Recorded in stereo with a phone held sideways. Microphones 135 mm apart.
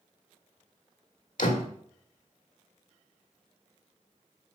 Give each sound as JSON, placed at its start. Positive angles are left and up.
{"t": 1.4, "sound": "a door slam", "side_deg": 75, "distance_m": 1.5}